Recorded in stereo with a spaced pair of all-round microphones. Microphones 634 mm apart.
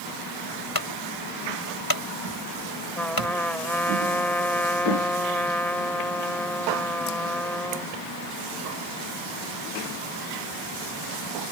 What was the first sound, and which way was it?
A clunk, 35° left (ahead or behind).